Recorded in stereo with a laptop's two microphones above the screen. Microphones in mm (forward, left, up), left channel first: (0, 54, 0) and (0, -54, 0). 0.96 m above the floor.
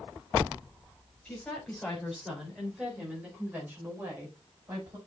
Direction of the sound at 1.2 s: 10° left (ahead or behind).